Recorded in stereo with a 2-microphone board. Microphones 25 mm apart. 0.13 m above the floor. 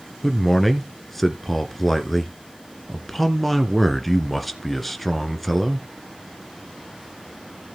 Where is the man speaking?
10° left (ahead or behind), 1.5 m.